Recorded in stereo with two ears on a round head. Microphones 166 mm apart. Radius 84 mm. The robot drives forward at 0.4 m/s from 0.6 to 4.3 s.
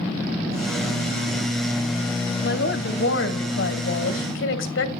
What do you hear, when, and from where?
2.4 s a woman speaking: 60° left (ahead or behind), 2.5 m; by 5.0 s 75° left (ahead or behind), 2.5 m